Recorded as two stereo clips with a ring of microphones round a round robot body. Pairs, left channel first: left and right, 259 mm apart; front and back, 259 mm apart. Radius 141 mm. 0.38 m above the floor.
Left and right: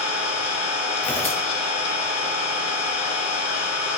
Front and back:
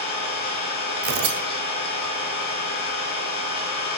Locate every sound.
0.0 s an engine running: 60° left, 3 m
1.0 s tearing paper: 175° left, 0.7 m